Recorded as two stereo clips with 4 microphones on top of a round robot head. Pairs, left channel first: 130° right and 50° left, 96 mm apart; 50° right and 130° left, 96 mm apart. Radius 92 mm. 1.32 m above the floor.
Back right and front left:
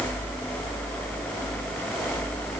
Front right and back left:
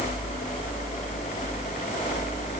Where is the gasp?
I don't hear a gasp.